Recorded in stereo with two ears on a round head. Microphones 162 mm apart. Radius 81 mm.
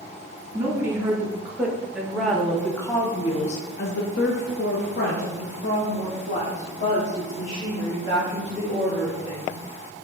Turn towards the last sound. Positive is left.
turn(degrees=40)  # may be behind; listen again after turning